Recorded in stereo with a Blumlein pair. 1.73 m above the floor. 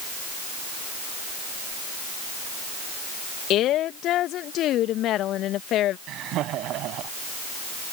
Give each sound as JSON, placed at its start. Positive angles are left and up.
{"t": 3.5, "sound": "a woman speaking", "azimuth_deg": 35}
{"t": 6.1, "sound": "laughter", "azimuth_deg": -35}